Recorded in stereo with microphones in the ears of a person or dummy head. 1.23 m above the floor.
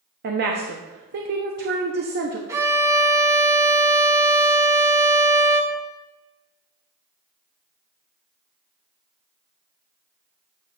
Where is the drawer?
I don't hear a drawer.